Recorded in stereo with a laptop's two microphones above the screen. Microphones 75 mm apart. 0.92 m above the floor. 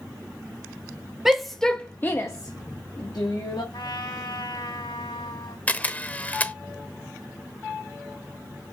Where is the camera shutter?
20° left (ahead or behind), 0.8 m.